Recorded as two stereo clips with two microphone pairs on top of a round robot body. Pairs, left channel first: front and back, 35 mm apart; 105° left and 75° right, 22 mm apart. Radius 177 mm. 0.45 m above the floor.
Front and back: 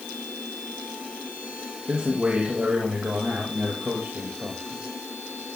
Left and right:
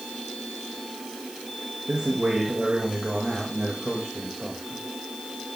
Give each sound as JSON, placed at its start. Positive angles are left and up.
{"t": 1.9, "sound": "a man speaking", "azimuth_deg": -120, "distance_m": 3.5}